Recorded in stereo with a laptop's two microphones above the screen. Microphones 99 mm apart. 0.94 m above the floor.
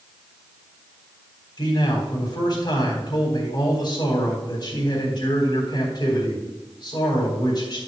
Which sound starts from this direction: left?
A man speaking, at 1.6 s.